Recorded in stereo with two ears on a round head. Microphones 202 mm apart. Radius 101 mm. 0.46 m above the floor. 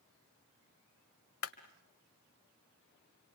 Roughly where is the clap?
Left.